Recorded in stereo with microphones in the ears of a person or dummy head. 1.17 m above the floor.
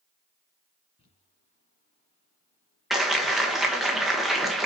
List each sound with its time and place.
1.0 s crumpling: 30° left (ahead or behind), 2 m
2.9 s a clap: centre (ahead or behind), 1.2 m